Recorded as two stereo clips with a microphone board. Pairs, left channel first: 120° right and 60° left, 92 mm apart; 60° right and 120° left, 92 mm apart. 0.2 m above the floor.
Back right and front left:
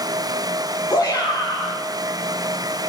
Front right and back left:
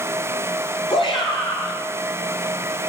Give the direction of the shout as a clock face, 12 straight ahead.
2 o'clock.